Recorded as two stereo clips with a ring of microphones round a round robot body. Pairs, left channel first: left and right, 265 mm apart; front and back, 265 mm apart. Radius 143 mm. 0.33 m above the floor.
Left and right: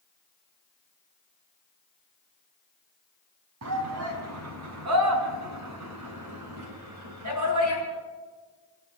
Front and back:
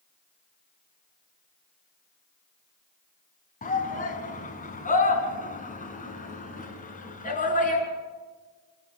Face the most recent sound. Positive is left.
turn(degrees=-60)